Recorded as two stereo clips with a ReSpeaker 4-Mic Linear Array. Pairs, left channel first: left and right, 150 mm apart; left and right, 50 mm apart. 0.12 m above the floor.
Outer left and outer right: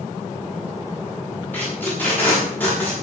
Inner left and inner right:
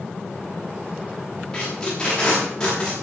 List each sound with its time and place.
1.5 s tape being pulled: 10° left (ahead or behind), 8.5 m